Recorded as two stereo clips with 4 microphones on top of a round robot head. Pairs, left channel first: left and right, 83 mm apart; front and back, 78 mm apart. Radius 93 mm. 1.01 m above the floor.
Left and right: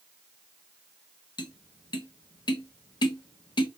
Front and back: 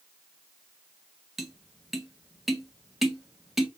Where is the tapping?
95° left, 1.0 m.